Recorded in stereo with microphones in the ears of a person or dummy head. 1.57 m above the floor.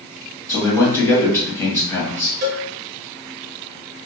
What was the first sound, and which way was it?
A man speaking, 15° left (ahead or behind).